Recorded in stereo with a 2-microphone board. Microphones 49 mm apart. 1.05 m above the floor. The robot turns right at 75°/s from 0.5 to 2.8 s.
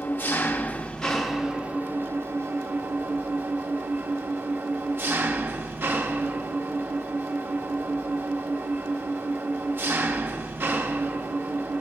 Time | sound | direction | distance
0.0 | an engine running | 125° left | 1.0 m